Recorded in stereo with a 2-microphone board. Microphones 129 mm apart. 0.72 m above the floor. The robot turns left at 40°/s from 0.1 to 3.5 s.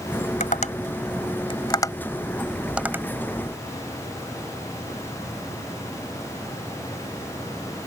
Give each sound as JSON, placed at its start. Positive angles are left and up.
{"t": 0.4, "sound": "tapping", "side_deg": 85}